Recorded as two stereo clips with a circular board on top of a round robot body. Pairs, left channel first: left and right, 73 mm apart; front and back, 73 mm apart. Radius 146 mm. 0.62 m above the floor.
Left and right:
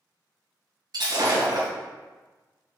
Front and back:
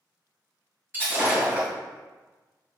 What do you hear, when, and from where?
0.9 s breaking glass: 115° right, 2.5 m